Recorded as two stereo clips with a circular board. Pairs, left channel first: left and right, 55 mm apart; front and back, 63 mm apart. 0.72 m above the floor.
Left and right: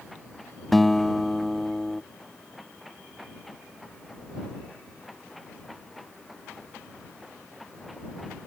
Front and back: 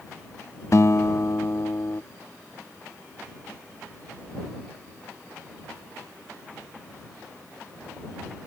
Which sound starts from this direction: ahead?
A guitar, at 0.7 s.